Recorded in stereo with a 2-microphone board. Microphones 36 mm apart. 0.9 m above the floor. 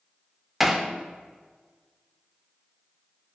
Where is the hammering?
5° right (ahead or behind), 0.7 m.